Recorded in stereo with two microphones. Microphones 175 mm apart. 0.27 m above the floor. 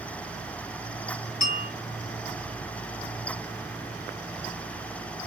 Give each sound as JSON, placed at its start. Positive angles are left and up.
{"t": 1.4, "sound": "a bell", "side_deg": 55, "distance_m": 3.5}